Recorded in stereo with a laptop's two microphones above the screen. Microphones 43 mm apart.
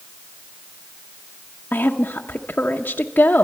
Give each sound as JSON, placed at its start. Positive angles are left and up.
{"t": 1.7, "sound": "a woman speaking", "side_deg": 45, "distance_m": 0.7}